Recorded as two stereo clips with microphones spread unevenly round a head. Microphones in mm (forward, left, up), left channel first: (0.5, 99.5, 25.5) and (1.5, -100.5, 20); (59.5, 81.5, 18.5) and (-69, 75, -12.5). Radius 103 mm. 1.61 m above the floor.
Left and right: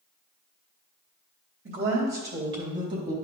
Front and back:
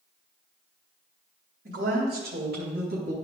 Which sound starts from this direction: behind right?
A woman speaking, at 1.6 s.